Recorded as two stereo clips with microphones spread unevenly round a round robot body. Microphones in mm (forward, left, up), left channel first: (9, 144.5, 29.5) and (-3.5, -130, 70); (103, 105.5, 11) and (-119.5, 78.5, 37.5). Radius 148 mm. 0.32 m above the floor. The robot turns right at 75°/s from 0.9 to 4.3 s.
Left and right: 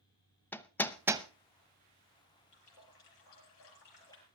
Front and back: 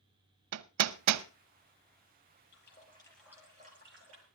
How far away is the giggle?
I don't hear a giggle.